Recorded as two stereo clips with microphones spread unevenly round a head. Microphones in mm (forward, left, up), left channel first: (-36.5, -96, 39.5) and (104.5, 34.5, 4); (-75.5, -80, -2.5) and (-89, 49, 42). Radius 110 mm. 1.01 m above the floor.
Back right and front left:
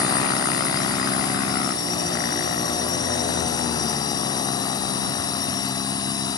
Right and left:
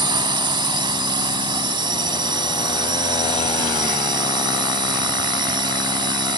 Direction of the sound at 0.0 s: 150° left.